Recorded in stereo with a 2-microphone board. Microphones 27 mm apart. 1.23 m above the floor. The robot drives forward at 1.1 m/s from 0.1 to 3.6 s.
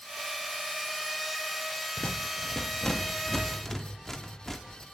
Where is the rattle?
55° left (ahead or behind), 0.7 m; by 4.8 s 15° left (ahead or behind), 2 m.